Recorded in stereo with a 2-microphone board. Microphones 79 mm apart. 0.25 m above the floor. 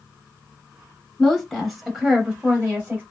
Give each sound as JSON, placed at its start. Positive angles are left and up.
{"t": 1.2, "sound": "a woman speaking", "side_deg": 10, "distance_m": 1.1}